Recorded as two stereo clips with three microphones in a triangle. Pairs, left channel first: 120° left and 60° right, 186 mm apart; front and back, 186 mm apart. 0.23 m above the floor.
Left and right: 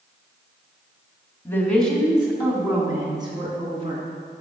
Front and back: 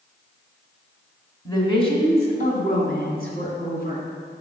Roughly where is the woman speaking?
Ahead left.